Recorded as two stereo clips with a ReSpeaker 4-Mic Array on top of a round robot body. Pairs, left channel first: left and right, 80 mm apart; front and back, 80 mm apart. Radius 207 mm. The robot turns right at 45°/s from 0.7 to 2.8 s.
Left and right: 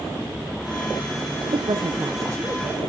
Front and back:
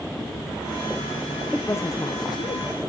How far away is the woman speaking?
About 0.6 m.